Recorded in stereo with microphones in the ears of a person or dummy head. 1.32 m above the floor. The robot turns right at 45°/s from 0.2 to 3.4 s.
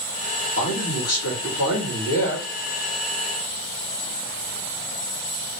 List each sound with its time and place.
0.6 s a man speaking: 65° left, 1.7 m; by 2.5 s 155° left, 1.7 m